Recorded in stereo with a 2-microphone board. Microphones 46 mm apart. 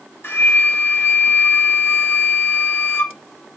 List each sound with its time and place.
0.2 s a flute: 50° left (ahead or behind), 1.0 m